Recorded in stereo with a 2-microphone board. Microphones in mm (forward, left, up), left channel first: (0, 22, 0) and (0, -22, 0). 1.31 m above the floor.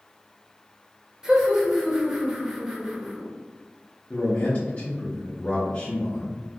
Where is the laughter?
20° right (ahead or behind), 0.9 m.